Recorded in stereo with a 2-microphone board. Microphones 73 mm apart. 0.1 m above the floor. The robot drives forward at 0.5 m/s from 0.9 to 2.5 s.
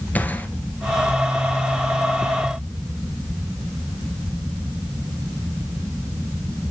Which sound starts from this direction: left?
A gunshot, at 0.1 s.